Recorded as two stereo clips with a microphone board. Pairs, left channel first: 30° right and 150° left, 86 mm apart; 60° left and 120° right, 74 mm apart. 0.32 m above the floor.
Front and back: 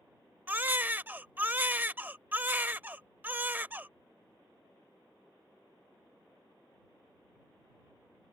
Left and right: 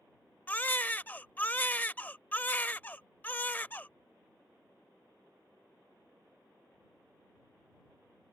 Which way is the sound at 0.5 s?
105° left.